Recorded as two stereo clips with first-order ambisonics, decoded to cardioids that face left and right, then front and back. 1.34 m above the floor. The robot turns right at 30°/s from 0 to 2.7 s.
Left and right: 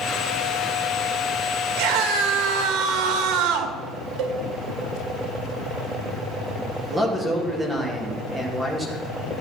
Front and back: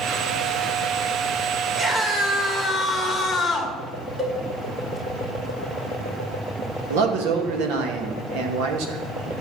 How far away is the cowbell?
About 1.6 m.